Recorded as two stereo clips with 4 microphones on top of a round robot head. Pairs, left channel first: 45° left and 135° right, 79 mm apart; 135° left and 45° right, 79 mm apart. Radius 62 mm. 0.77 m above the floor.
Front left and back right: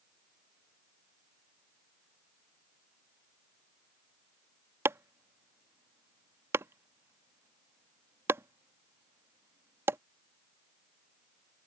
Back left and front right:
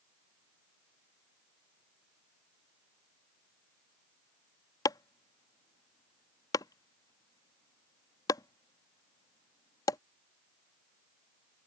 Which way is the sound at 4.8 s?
170° left.